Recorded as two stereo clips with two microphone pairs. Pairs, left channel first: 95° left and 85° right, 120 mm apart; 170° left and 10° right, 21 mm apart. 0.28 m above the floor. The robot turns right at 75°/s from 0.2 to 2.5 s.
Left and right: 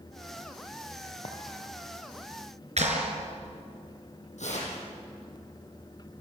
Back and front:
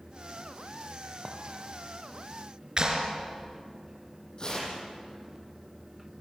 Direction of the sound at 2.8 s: 65° right.